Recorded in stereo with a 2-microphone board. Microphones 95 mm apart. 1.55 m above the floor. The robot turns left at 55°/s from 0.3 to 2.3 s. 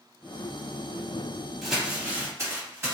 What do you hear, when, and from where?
1.6 s crumpling: 5° left (ahead or behind), 1.3 m; by 2.9 s 30° right (ahead or behind), 1.3 m